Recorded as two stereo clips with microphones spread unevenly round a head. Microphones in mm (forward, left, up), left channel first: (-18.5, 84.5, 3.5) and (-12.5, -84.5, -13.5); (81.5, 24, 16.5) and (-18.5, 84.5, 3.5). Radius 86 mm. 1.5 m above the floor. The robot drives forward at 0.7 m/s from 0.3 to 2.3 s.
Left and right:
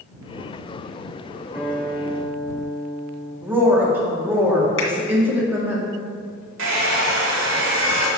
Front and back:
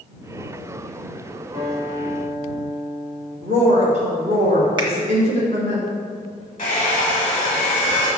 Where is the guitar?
170° right, 3 m; by 3.3 s 175° right, 3.5 m.